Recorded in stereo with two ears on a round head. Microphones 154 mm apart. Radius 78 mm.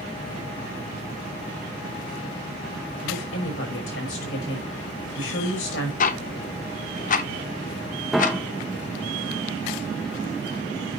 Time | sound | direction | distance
3.0 | a woman speaking | 85° left | 5.5 m
6.0 | ticking | 45° left (ahead or behind) | 0.6 m
8.1 | a piano | centre (ahead or behind) | 0.6 m